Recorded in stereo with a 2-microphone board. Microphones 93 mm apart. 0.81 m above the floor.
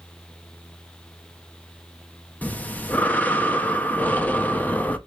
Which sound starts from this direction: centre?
Breathing, at 2.4 s.